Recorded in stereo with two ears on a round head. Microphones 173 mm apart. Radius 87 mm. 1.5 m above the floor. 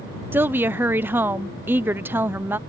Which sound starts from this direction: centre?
A woman speaking, at 0.3 s.